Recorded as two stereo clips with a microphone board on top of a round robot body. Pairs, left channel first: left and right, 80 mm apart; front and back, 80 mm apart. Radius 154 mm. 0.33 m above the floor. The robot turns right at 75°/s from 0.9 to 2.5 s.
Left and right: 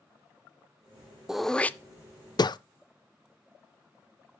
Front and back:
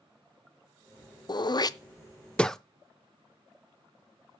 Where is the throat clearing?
10° right, 0.5 m; by 2.6 s 85° left, 0.5 m.